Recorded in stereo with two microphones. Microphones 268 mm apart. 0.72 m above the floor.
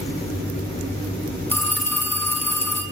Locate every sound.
1.5 s a phone ringing: 10° left (ahead or behind), 4 m